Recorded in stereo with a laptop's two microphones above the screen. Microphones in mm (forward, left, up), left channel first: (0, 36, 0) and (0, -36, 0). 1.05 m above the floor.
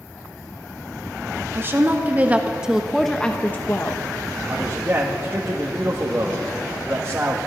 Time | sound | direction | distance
1.5 | a woman speaking | 30° right (ahead or behind) | 1.5 m
4.5 | a man speaking | 30° right (ahead or behind) | 1.5 m